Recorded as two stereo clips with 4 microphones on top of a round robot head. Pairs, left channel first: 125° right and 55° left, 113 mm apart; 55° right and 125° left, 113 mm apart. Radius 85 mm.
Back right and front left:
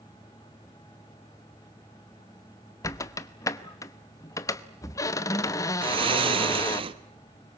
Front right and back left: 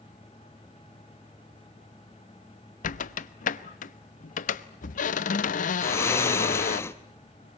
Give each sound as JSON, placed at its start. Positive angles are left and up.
{"t": 2.8, "sound": "a squeak", "azimuth_deg": -60, "distance_m": 0.9}
{"t": 5.8, "sound": "snoring", "azimuth_deg": 10, "distance_m": 1.2}